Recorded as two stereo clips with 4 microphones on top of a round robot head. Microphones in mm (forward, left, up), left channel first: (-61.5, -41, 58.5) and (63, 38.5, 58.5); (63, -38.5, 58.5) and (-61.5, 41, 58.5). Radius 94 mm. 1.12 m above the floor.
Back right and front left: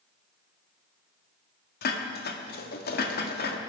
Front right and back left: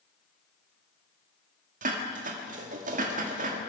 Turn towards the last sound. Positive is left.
turn(degrees=-175)